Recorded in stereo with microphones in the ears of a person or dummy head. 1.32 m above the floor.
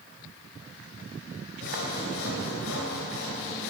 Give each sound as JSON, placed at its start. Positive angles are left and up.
{"t": 1.6, "sound": "sawing", "side_deg": 70, "distance_m": 2.5}